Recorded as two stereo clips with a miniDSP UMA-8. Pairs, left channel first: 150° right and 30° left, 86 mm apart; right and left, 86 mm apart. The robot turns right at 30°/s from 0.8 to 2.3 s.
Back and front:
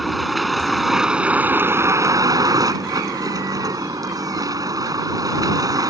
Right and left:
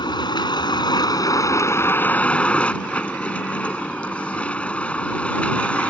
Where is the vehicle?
60° right; by 5.9 s 15° right.